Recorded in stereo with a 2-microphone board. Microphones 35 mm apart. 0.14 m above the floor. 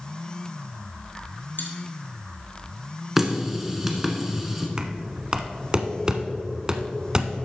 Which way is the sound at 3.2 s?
10° right (ahead or behind).